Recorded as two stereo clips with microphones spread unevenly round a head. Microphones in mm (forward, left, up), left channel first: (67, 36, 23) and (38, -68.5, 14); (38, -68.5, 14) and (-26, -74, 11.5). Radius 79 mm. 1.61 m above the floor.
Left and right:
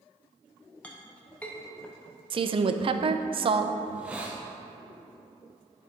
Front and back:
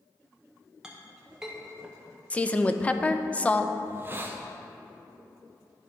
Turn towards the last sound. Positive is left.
turn(degrees=170)